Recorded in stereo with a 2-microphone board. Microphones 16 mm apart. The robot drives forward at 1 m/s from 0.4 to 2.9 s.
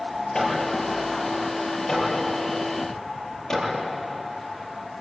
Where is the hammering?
40° left (ahead or behind), 8.5 m; by 5.0 s 35° left (ahead or behind), 10.5 m.